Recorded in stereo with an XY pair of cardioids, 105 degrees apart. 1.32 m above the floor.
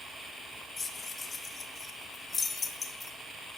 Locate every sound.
0.8 s keys jangling: 40° left, 1.1 m